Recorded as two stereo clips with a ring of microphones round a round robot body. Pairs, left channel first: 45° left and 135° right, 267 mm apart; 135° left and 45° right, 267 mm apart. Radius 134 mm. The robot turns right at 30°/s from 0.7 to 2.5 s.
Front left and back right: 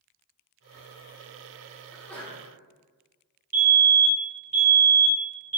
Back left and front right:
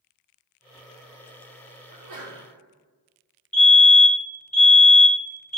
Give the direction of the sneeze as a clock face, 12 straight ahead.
2 o'clock.